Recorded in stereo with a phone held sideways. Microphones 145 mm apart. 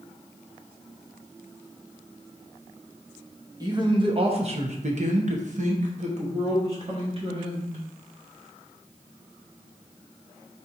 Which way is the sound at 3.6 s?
25° right (ahead or behind).